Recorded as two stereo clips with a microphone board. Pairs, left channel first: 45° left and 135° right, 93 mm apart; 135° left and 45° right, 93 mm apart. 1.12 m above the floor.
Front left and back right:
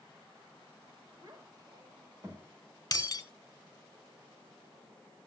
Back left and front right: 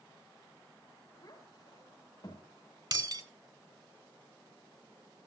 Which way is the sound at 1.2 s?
Straight behind.